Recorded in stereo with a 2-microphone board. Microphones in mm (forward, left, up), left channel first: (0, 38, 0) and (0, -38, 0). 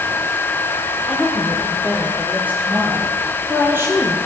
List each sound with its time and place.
1.1 s a woman speaking: 10° right (ahead or behind), 8.5 m; by 4.2 s 35° right (ahead or behind), 9 m